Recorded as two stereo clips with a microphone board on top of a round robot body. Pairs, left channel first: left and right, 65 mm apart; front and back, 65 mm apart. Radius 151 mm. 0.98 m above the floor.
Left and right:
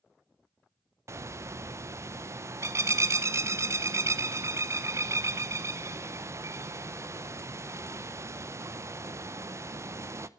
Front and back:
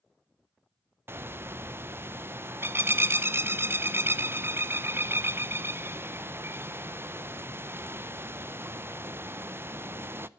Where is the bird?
130° right, 0.9 m.